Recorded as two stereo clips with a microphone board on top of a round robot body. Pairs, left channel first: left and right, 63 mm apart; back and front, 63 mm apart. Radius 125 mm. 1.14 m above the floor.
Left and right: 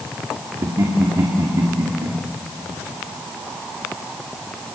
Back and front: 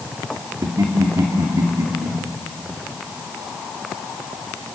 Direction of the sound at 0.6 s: 40° right.